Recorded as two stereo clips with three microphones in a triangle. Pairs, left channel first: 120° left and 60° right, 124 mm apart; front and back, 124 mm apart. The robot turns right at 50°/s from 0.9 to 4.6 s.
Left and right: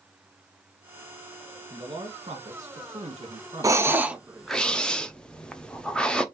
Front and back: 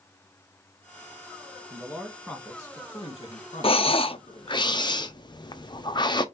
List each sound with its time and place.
1.7 s a man speaking: 110° right, 1.6 m; by 4.6 s 35° left, 1.6 m
3.6 s breathing: 10° right, 0.6 m; by 6.2 s 40° left, 0.6 m